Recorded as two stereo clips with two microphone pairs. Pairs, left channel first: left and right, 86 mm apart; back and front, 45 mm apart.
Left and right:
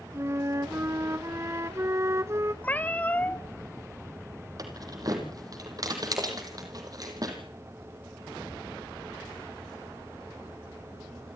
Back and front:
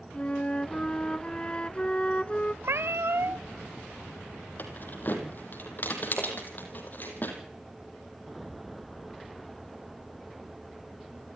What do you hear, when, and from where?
0.1 s a flute: 125° right, 0.7 m
2.6 s a cat meowing: 20° left, 0.7 m
4.6 s keys jangling: 130° right, 4 m